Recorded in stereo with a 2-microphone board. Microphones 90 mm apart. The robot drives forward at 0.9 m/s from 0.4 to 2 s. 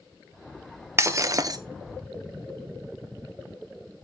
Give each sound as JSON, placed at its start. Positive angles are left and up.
{"t": 1.0, "sound": "breaking glass", "side_deg": -30, "distance_m": 1.2}